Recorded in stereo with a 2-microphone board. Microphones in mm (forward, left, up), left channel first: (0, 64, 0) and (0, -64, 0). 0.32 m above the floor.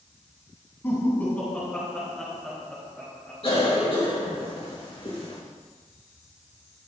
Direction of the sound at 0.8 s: 20° left (ahead or behind).